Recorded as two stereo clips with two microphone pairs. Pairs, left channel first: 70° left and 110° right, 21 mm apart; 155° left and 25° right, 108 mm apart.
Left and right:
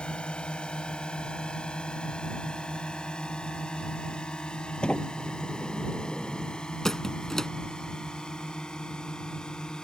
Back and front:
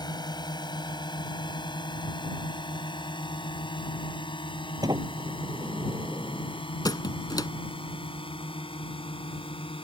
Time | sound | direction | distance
0.0 | a drone | 110° left | ?
4.8 | a sliding door | 30° left | ?
6.8 | a squeak | 125° left | ?